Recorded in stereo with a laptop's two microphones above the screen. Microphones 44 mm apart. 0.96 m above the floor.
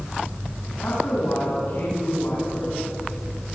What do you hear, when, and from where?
0.8 s a woman speaking: 60° left (ahead or behind), 8 m